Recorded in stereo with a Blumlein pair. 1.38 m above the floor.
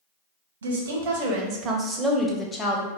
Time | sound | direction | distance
0.6 | a woman speaking | 65° right | 0.9 m